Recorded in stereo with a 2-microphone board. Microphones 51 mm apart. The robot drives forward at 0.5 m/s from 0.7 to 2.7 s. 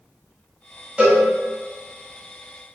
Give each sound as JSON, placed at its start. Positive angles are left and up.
{"t": 1.0, "sound": "a cowbell", "side_deg": -25, "distance_m": 1.1}